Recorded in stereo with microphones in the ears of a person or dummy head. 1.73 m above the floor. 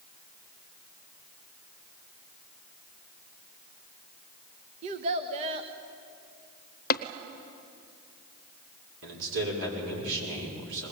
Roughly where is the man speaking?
Right.